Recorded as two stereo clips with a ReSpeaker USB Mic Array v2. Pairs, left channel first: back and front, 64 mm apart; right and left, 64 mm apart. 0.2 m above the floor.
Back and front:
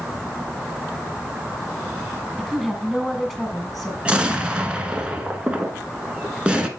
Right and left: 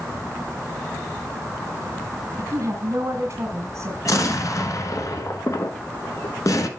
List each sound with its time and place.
2.4 s a woman speaking: 95° left, 2 m
4.0 s an explosion: 70° right, 1.0 m